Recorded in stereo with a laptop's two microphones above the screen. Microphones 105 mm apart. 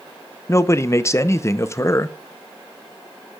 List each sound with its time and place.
0.5 s a man speaking: 25° left (ahead or behind), 0.6 m